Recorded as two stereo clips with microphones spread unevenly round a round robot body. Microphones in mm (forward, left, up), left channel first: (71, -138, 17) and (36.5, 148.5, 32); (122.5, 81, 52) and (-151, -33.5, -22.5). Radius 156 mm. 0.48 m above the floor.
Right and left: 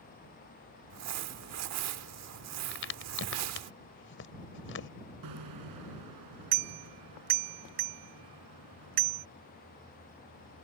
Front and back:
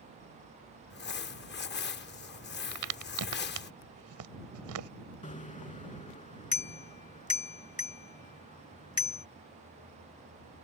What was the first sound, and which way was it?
Crumpling, 85° left.